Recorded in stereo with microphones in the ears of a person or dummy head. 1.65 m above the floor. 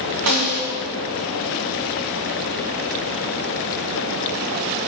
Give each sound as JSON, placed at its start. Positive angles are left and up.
{"t": 0.3, "sound": "a snare drum", "side_deg": -85, "distance_m": 3.5}